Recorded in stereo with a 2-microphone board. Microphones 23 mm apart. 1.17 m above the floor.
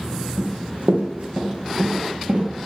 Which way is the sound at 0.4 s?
50° right (ahead or behind).